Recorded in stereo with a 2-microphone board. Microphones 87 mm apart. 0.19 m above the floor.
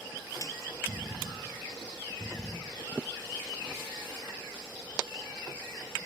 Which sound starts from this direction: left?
A snare drum, at 0.4 s.